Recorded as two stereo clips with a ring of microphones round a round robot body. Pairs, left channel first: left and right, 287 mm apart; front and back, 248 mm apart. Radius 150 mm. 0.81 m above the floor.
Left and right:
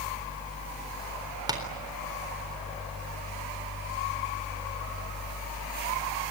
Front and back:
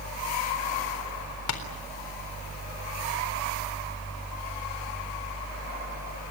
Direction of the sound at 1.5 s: 15° right.